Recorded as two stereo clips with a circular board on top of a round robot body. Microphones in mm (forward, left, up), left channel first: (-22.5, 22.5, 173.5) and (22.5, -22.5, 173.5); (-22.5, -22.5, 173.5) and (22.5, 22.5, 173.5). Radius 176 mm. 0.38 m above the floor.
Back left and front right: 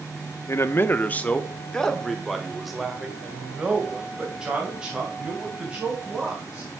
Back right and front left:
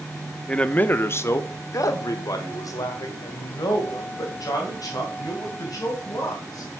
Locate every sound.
0.5 s a man speaking: 155° left, 1.0 m; by 6.7 s 115° right, 5 m